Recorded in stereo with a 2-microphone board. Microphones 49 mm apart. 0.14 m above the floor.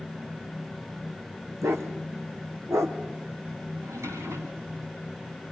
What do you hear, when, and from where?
1.6 s a dog barking: 80° right, 4.5 m; by 3.0 s 75° right (ahead or behind), 4.5 m
3.8 s a drawer: 85° right, 9 m